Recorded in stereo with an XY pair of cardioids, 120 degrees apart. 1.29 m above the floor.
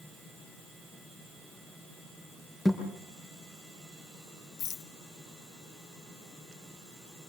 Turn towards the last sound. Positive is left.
turn(degrees=70)